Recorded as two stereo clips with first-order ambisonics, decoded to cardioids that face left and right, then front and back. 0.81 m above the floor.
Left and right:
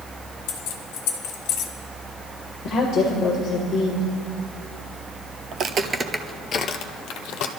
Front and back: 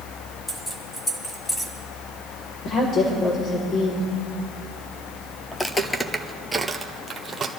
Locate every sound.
0.5 s keys jangling: 80° left, 1.8 m
2.6 s a woman speaking: 30° left, 3 m
5.5 s footsteps: 65° right, 1.0 m; by 7.5 s 105° left, 1.6 m